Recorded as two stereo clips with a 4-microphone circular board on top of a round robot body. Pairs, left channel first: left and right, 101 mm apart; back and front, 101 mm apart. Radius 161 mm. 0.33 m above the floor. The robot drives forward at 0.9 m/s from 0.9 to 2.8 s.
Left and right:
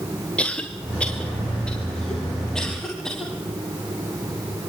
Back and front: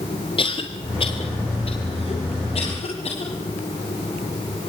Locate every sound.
0.4 s a cough: 165° left, 1.7 m; by 3.3 s 175° left, 3 m